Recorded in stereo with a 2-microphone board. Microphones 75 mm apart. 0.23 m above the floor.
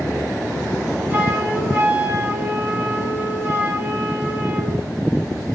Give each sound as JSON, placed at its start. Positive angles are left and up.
{"t": 1.1, "sound": "a flute", "side_deg": -30, "distance_m": 1.8}